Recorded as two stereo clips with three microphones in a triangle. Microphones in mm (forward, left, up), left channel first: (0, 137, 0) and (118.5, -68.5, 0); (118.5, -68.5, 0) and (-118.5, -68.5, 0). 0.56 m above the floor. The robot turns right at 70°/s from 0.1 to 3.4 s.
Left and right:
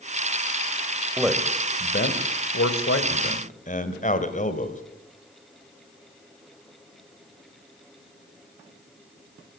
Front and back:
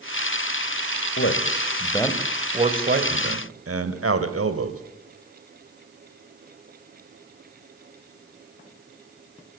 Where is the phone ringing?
I don't hear a phone ringing.